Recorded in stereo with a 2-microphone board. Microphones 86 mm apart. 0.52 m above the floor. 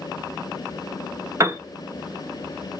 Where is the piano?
35° right (ahead or behind), 0.7 m.